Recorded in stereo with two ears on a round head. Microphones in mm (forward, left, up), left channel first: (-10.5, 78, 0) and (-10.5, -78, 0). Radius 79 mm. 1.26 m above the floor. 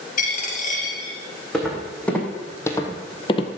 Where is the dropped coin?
50° left (ahead or behind), 3 m.